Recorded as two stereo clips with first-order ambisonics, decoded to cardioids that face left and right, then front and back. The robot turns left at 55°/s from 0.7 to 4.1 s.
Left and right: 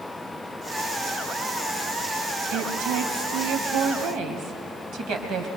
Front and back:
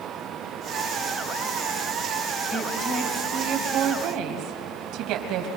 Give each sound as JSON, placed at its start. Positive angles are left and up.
{"t": 2.5, "sound": "a woman speaking", "azimuth_deg": -50, "distance_m": 3.0}